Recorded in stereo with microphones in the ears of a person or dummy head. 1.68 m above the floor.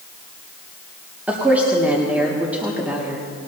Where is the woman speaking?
5° right (ahead or behind), 1.9 m.